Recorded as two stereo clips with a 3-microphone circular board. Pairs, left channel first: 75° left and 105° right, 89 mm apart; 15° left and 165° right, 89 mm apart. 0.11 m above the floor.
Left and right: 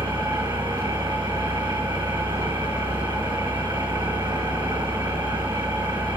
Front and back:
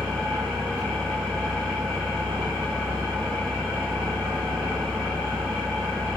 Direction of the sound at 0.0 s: 85° right.